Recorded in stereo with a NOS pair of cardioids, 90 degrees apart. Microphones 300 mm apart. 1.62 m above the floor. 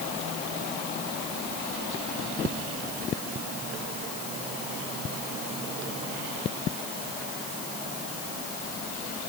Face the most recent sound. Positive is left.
No sound to turn to.